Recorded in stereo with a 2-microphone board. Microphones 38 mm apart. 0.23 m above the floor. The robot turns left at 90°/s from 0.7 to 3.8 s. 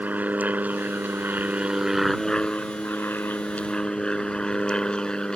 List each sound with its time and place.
0.0 s an aircraft: 55° right; by 5.4 s 25° left